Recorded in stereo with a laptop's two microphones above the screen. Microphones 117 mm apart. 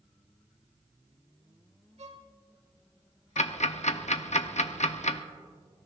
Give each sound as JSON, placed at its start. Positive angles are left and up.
{"t": 2.0, "sound": "a violin", "side_deg": -70, "distance_m": 1.2}
{"t": 3.4, "sound": "ticking", "side_deg": 75, "distance_m": 0.7}